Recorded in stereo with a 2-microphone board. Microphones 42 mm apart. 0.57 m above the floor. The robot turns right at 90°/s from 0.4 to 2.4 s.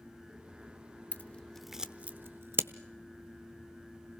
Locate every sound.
1.1 s scissors: 45° left (ahead or behind), 0.8 m; by 2.7 s 60° right (ahead or behind), 0.8 m